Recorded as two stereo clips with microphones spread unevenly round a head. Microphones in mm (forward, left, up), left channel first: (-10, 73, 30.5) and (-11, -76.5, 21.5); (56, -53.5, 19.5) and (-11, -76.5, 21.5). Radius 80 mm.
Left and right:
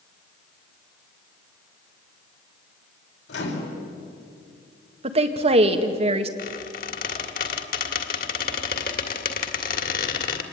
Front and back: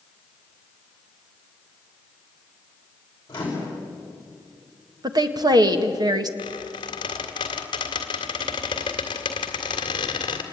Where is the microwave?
90° left, 5 m.